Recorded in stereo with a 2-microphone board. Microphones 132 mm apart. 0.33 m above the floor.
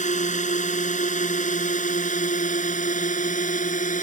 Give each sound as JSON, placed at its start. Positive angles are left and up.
{"t": 0.0, "sound": "a drone", "side_deg": 65}